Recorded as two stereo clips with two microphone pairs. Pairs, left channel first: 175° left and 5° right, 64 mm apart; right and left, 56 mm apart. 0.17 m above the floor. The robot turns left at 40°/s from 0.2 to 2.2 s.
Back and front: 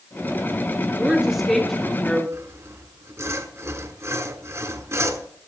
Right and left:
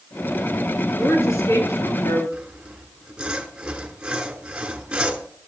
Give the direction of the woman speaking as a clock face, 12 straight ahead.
2 o'clock.